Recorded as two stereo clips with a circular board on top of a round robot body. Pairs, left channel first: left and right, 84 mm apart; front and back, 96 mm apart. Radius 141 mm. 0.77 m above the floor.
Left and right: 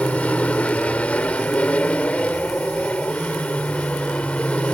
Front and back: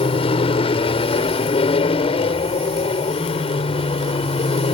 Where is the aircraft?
15° left.